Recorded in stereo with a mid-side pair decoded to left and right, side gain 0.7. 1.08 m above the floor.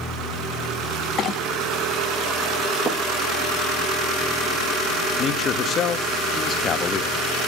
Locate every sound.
1.2 s a clink: 45° left, 0.8 m
2.8 s footsteps: 25° right, 4.5 m
5.2 s a man speaking: 40° left, 1.2 m